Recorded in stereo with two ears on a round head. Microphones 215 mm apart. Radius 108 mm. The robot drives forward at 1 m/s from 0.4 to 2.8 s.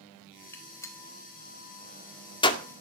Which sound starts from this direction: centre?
A gunshot, at 0.5 s.